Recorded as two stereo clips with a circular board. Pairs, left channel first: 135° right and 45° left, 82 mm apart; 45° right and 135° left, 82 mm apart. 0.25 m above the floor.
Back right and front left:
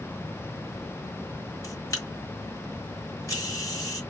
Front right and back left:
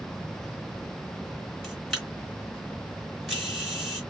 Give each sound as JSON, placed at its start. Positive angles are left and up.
{"t": 1.6, "sound": "a camera shutter", "azimuth_deg": -135, "distance_m": 1.6}